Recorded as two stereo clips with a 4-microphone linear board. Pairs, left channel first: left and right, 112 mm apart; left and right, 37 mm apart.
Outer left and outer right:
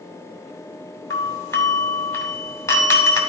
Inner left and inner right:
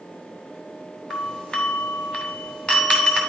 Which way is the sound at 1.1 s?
25° left (ahead or behind).